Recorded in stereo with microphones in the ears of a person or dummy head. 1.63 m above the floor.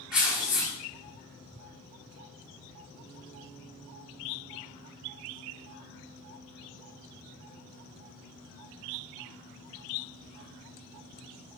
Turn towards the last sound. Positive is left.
turn(degrees=0)  # may be behind; listen again after turning